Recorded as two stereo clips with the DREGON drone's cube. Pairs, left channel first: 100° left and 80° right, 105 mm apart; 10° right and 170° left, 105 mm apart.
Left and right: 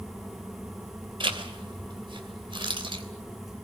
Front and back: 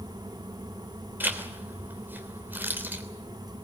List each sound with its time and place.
1.2 s a zipper: 120° right, 3 m